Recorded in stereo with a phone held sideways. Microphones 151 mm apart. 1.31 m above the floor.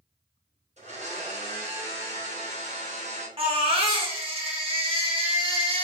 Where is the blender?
45° right (ahead or behind), 0.9 m.